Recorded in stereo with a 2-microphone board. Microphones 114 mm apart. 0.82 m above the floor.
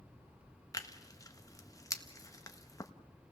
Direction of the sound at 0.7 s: 30° left (ahead or behind).